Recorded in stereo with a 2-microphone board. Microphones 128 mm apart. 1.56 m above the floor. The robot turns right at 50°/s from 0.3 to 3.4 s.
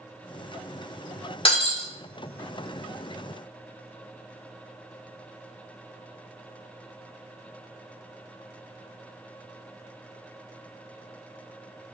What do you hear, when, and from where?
1.4 s breaking glass: 45° left (ahead or behind), 1.6 m; by 1.9 s 50° left (ahead or behind), 1.6 m